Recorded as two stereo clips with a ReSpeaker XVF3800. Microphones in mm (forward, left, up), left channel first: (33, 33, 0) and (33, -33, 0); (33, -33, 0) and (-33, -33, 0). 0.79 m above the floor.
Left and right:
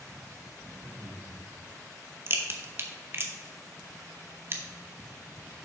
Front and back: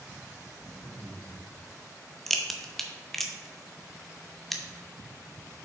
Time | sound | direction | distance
0.5 | laughter | 15° right | 3.5 m
2.3 | a crack | 85° right | 0.9 m